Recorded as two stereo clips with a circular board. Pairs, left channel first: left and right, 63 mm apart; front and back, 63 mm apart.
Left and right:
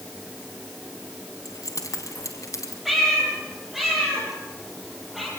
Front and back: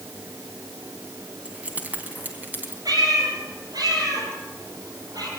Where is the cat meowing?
175° right, 6.5 m.